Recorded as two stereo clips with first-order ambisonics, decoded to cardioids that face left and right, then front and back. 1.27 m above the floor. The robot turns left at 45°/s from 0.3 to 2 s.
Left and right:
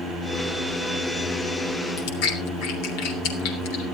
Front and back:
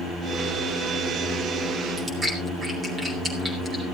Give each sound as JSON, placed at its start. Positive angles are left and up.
{"t": 2.0, "sound": "chewing", "azimuth_deg": 105, "distance_m": 3.0}